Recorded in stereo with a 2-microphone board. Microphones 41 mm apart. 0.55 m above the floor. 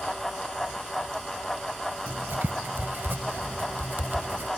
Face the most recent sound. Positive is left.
turn(degrees=-60)  # may be behind; listen again after turning